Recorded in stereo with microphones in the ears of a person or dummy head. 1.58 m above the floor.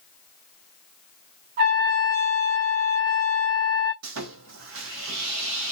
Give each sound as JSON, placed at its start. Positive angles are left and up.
{"t": 1.6, "sound": "a trumpet", "side_deg": -50, "distance_m": 0.9}
{"t": 4.0, "sound": "sawing", "side_deg": -65, "distance_m": 0.5}